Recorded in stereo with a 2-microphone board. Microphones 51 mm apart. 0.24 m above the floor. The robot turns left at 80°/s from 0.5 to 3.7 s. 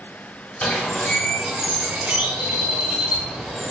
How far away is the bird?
About 0.8 m.